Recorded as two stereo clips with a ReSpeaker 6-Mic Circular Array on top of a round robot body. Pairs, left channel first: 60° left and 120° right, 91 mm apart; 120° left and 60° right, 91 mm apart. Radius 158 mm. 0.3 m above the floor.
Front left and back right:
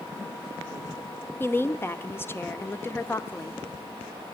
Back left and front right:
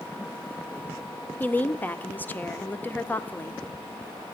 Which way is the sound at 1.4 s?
80° left.